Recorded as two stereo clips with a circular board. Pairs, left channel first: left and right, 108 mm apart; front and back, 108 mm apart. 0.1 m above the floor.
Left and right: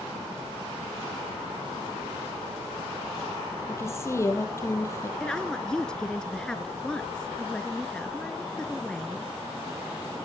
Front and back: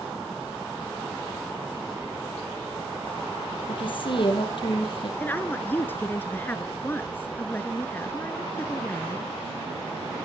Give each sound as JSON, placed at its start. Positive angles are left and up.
{"t": 3.7, "sound": "a woman speaking", "azimuth_deg": 30, "distance_m": 3.5}
{"t": 5.2, "sound": "a woman speaking", "azimuth_deg": 25, "distance_m": 1.1}